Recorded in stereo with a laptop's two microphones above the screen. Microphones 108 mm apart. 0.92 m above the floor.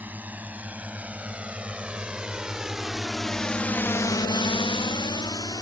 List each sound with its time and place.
0.0 s a drone: 15° right (ahead or behind); by 5.6 s 40° left (ahead or behind)